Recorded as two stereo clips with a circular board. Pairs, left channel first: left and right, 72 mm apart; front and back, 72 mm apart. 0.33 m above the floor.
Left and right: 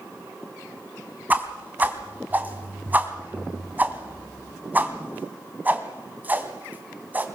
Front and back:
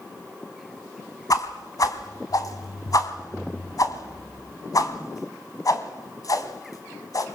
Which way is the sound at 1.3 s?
25° right.